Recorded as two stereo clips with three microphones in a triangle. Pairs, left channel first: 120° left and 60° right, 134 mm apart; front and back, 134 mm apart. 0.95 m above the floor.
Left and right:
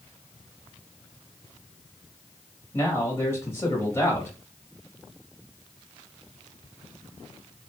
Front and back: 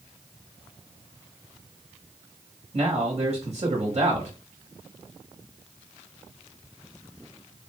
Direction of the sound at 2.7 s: Straight behind.